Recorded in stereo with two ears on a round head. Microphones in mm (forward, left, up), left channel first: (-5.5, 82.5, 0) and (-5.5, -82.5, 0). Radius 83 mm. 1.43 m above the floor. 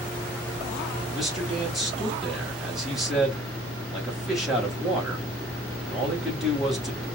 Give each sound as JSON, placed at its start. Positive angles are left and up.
{"t": 1.1, "sound": "a man speaking", "side_deg": 0, "distance_m": 3.5}